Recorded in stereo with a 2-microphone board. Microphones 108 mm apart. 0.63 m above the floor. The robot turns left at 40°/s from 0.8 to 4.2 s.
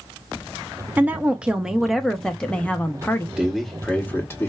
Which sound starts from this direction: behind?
A man speaking, at 3.4 s.